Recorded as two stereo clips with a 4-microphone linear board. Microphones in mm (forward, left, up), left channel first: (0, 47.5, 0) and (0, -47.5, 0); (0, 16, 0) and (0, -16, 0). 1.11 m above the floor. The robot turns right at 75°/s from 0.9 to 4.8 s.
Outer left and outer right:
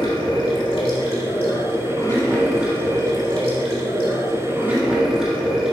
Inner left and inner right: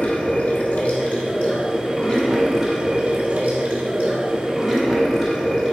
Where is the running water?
60° left, 2.0 m; by 5.7 s 5° right, 2.0 m.